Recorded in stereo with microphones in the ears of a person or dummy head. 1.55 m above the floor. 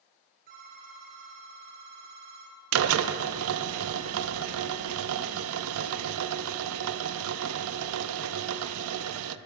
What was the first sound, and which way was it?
A phone ringing, 55° right (ahead or behind).